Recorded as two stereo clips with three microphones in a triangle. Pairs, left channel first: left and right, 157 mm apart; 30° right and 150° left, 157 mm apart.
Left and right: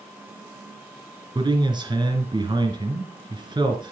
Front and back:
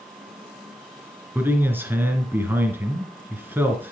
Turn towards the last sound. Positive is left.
turn(degrees=-140)